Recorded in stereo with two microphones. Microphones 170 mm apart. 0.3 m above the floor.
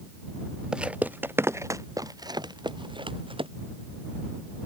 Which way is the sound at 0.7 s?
5° right (ahead or behind).